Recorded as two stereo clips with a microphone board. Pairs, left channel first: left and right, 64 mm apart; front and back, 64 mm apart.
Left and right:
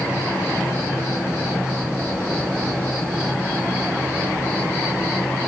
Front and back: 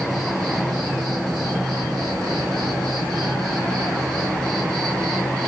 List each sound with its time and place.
0.0 s an insect: 155° right, 9 m